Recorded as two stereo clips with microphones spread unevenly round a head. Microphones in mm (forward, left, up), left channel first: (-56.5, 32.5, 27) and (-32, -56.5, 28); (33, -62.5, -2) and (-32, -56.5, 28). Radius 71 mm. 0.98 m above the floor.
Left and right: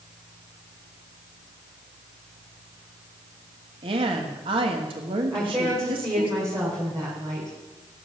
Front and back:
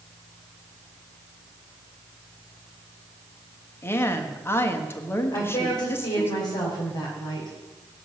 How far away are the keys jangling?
No keys jangling in this recording.